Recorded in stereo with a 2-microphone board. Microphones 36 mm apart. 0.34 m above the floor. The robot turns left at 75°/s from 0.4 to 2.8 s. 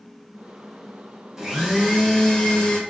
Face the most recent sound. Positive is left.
turn(degrees=25)  # may be behind; listen again after turning